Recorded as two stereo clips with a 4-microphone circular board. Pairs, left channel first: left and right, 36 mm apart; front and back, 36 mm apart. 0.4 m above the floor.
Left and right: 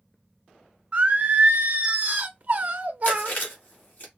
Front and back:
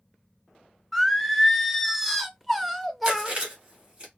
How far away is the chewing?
About 1.5 m.